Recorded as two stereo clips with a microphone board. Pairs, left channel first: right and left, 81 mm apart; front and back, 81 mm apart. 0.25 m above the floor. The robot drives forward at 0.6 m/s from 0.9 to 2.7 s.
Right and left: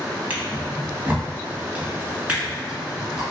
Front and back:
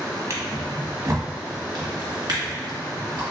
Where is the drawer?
150° left, 0.9 m; by 3.2 s 170° left, 1.8 m.